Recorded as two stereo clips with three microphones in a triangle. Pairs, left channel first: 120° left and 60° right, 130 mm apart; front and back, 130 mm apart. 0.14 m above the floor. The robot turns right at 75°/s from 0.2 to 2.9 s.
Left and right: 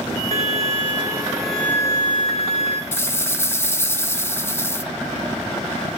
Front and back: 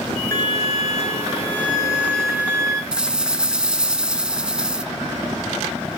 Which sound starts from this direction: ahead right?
A violin, at 0.3 s.